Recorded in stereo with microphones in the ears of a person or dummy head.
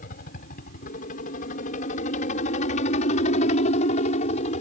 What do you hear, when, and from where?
0.0 s a helicopter: 45° left (ahead or behind); by 4.6 s 40° left (ahead or behind)